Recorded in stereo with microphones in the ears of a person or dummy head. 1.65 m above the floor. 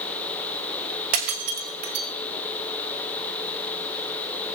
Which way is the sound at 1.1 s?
45° right (ahead or behind).